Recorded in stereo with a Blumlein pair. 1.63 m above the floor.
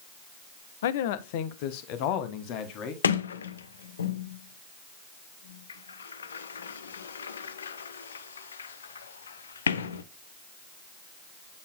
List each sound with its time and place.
0.8 s a man speaking: 60° left, 0.6 m; by 2.9 s 40° left, 1.9 m
3.0 s a sliding door: 70° left, 0.6 m